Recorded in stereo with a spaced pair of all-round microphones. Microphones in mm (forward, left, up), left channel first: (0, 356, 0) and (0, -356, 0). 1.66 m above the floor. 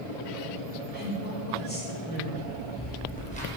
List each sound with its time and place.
0.9 s a woman speaking: 15° left (ahead or behind), 7 m
2.4 s footsteps: 15° left (ahead or behind), 4.5 m; by 3.5 s 10° left (ahead or behind), 4 m